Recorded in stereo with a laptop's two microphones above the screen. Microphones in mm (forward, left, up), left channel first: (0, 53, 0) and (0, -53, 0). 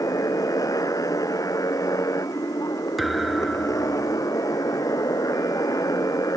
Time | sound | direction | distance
0.0 | a motorcycle | 35° left (ahead or behind) | ?
3.0 | a thud | centre (ahead or behind) | ?